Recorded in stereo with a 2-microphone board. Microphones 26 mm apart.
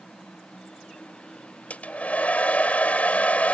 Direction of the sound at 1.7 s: 65° left (ahead or behind).